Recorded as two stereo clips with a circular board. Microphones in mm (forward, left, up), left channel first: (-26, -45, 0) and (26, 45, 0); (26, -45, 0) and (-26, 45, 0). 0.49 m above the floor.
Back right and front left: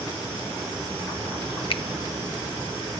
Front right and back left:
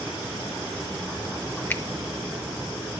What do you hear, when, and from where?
1.7 s a finger snap: 130° right, 0.9 m